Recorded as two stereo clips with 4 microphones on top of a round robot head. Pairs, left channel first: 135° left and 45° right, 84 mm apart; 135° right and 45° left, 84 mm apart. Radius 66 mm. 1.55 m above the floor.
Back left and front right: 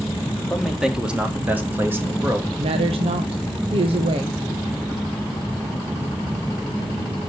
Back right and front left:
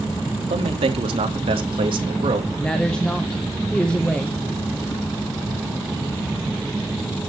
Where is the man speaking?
45° left, 1.7 m; by 2.5 s 15° left, 3 m.